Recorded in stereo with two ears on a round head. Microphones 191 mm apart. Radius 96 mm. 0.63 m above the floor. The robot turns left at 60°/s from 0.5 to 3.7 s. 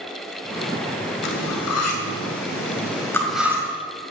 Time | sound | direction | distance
1.2 | cutlery clinking | 55° left (ahead or behind) | 2 m